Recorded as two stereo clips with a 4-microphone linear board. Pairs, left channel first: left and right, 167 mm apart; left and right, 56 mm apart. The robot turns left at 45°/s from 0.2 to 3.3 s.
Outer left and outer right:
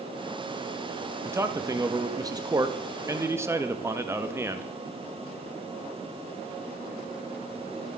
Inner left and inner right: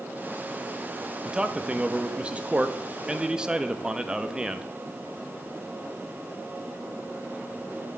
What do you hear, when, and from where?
1.2 s a man speaking: 15° right (ahead or behind), 0.6 m